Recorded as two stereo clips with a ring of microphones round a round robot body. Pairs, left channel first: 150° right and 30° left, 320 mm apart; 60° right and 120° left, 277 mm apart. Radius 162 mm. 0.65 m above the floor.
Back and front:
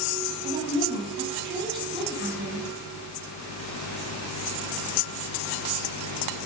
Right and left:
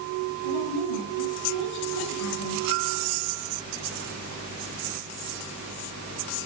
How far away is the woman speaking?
About 8 m.